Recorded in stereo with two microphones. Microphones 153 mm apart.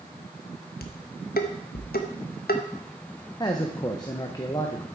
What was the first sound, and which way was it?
Dishes clattering, 80° left.